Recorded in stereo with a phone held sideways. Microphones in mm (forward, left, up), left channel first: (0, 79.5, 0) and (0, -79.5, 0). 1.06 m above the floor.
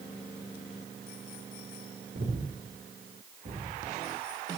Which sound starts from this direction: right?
Breathing, at 2.1 s.